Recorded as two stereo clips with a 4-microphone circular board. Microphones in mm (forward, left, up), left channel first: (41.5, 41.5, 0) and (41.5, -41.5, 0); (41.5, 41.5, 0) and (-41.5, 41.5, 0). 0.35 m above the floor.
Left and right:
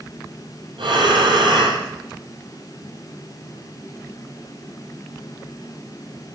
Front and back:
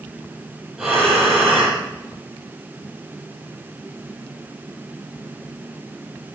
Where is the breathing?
95° right, 8 m.